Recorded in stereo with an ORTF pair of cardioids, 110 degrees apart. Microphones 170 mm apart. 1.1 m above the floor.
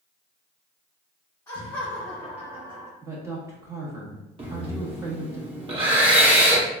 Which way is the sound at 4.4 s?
30° right.